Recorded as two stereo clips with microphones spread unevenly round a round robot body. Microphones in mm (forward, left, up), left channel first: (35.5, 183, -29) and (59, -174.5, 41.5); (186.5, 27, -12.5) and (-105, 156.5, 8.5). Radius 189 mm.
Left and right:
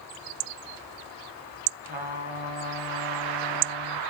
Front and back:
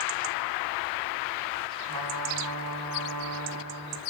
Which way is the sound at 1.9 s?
160° right.